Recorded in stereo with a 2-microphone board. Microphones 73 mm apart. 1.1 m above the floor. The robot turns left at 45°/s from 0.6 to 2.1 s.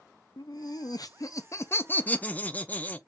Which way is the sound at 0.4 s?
90° left.